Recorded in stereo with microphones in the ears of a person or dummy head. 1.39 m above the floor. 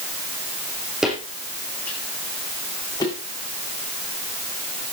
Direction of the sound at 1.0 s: 5° right (ahead or behind).